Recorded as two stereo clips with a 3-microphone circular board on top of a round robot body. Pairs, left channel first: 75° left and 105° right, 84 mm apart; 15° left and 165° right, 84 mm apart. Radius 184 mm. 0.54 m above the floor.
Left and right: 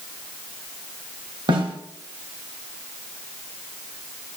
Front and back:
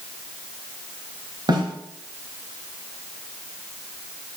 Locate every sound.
1.5 s a snare drum: 130° right, 2 m